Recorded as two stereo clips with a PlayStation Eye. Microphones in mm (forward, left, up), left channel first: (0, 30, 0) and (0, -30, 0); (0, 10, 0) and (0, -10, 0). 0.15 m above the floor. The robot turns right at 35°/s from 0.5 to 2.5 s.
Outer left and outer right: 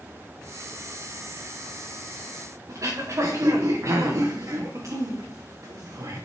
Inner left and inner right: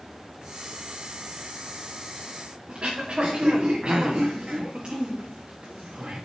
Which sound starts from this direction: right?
Throat clearing, at 2.7 s.